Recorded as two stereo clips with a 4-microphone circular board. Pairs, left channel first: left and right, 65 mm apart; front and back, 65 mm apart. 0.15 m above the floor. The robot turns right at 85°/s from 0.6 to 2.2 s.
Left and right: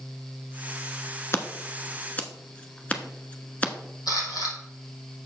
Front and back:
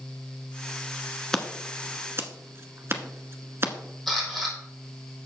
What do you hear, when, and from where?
1.3 s scissors: 75° left, 1.0 m; by 3.7 s 150° left, 1.0 m
4.1 s a camera shutter: 90° left, 4 m